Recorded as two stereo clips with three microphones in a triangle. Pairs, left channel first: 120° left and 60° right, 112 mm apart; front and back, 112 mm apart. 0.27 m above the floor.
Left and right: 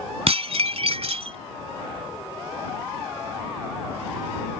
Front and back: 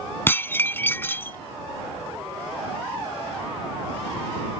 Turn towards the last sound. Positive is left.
turn(degrees=-70)